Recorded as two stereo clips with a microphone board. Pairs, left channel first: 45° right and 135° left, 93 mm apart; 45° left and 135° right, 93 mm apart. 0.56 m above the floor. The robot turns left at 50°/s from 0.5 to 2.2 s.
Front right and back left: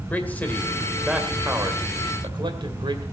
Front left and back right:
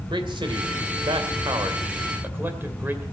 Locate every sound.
0.1 s a man speaking: 115° right, 2 m; by 3.0 s 160° left, 2 m